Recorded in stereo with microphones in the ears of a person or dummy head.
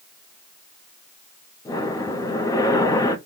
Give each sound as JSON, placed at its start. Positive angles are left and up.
{"t": 1.6, "sound": "breathing", "side_deg": 15, "distance_m": 0.5}